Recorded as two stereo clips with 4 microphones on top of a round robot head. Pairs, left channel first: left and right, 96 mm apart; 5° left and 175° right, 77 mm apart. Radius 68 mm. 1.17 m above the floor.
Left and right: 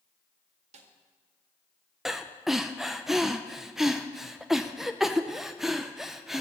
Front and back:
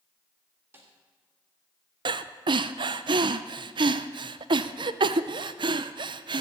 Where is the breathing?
Straight behind, 0.6 m.